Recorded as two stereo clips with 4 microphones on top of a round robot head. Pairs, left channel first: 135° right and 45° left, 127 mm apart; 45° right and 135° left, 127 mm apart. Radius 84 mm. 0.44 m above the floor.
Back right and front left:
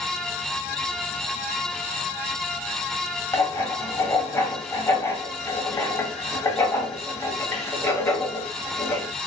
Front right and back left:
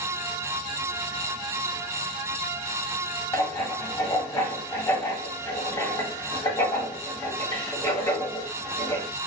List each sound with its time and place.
3.3 s writing: 90° right, 1.3 m